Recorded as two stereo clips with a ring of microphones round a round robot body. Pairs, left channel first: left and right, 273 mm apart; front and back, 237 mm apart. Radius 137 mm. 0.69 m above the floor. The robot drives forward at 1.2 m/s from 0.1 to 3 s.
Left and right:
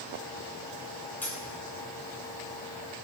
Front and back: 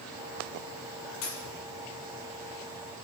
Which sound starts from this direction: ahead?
A dropped coin, at 1.2 s.